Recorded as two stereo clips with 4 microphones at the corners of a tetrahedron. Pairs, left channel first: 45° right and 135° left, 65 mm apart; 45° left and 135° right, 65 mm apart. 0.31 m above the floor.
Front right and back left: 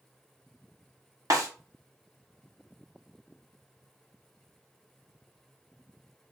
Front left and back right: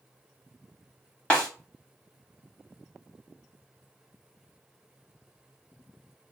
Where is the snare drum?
115° left, 1.1 m.